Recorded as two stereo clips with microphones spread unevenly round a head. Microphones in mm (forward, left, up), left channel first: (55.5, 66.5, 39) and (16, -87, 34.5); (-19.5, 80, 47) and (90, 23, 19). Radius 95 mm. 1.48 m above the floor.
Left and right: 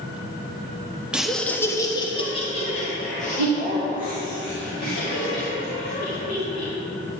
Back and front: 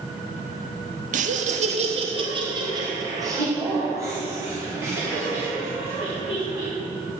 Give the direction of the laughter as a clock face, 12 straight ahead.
1 o'clock.